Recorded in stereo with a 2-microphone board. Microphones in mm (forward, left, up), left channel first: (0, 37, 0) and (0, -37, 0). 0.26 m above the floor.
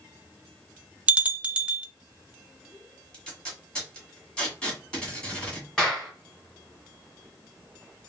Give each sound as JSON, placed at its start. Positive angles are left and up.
{"t": 1.1, "sound": "a bell", "side_deg": -15, "distance_m": 0.6}
{"t": 3.1, "sound": "tape being pulled", "side_deg": 15, "distance_m": 2.0}
{"t": 5.8, "sound": "a clap", "side_deg": 10, "distance_m": 2.5}